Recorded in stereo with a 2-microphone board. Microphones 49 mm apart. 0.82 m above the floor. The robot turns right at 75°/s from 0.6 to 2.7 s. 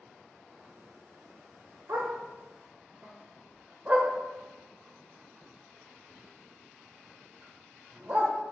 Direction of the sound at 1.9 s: 80° right.